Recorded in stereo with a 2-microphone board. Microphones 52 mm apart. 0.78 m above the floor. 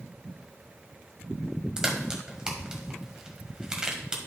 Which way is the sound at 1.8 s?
15° right (ahead or behind).